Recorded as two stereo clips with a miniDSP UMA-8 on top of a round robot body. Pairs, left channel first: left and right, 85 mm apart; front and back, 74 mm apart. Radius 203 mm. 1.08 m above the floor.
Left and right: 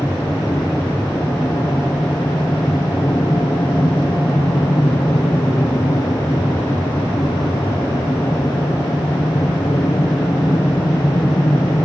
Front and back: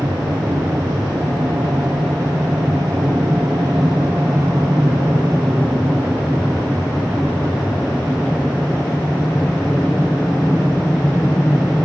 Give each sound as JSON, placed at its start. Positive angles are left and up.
{"t": 0.0, "sound": "an aircraft", "azimuth_deg": 140}